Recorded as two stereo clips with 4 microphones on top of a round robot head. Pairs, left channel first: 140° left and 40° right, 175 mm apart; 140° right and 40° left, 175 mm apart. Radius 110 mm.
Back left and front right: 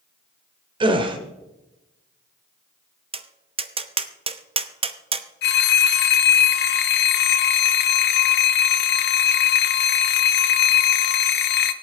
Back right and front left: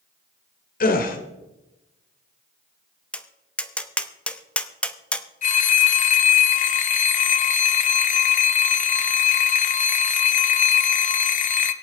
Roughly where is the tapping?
Ahead right.